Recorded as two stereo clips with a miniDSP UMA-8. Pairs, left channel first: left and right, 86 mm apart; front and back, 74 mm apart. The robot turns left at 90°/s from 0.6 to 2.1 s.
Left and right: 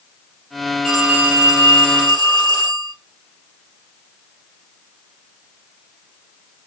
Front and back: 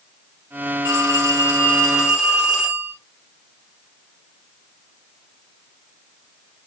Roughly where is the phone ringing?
Ahead.